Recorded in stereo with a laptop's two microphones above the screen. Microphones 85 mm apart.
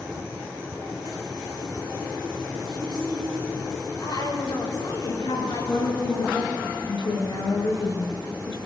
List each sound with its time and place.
2.7 s a woman speaking: 65° left (ahead or behind), 6.5 m
5.1 s a woman speaking: 85° left, 7.5 m